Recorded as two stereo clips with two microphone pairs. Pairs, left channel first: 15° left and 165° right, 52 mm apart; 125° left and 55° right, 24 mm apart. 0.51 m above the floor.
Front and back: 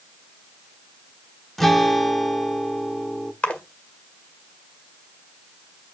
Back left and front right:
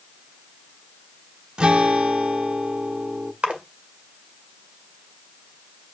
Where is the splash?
50° right, 1.7 m.